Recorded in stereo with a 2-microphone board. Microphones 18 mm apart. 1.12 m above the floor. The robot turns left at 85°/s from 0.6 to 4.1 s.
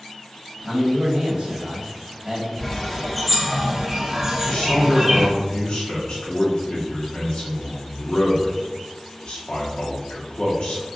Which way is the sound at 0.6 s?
10° right.